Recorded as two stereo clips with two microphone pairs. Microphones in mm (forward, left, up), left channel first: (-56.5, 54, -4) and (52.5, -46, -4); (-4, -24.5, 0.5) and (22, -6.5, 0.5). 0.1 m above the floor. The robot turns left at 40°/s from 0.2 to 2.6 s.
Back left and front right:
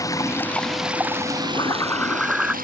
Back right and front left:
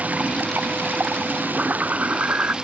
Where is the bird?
80° left; by 2.5 s 40° left.